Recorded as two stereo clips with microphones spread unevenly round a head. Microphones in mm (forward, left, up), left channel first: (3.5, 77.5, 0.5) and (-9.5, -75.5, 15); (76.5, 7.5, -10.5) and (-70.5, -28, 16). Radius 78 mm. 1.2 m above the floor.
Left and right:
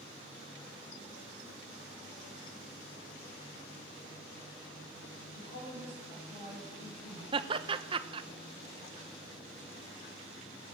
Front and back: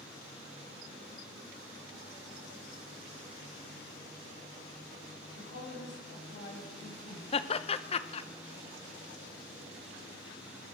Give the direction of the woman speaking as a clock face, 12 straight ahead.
11 o'clock.